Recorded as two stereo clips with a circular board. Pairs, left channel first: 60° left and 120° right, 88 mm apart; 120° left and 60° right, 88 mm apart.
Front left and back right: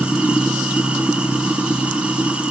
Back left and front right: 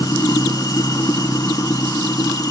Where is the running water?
165° left, 2 m.